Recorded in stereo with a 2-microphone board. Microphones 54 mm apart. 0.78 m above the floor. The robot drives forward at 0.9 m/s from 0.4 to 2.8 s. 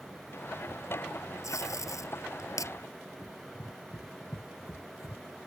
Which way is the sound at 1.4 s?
70° left (ahead or behind).